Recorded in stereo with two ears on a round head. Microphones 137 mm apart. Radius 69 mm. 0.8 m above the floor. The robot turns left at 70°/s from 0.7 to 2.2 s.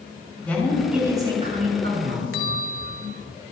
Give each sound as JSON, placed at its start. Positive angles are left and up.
{"t": 0.4, "sound": "a woman speaking", "azimuth_deg": 10, "distance_m": 7.0}
{"t": 2.3, "sound": "a bell", "side_deg": 70, "distance_m": 2.5}